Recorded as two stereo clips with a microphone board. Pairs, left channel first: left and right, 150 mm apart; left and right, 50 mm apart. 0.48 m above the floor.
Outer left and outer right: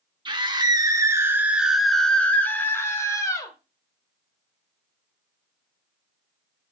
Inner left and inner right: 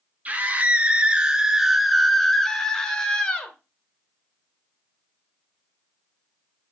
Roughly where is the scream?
Right.